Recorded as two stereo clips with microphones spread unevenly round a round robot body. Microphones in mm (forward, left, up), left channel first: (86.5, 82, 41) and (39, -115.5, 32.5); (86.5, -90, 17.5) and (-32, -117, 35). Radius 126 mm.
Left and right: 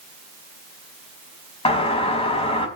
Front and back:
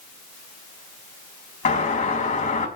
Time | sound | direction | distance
1.6 | a doorbell | 15° left | 5 m